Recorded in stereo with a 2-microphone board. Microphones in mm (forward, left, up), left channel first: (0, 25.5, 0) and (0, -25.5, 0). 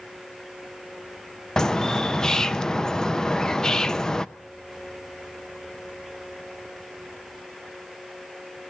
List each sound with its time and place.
1.6 s a bird: 10° left (ahead or behind), 0.6 m